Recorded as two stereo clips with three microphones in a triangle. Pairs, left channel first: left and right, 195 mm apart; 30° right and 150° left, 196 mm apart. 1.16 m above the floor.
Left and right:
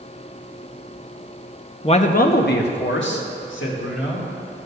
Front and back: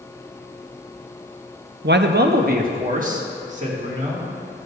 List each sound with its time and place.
1.8 s a man speaking: 145° left, 0.6 m; by 4.2 s 95° left, 2.5 m